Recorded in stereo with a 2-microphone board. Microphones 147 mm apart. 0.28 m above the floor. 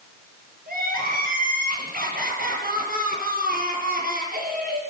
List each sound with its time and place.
0.7 s crying: 80° right, 8 m